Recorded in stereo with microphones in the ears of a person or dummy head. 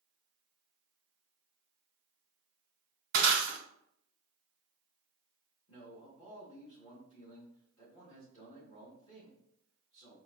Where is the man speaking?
25° left (ahead or behind), 1.5 m.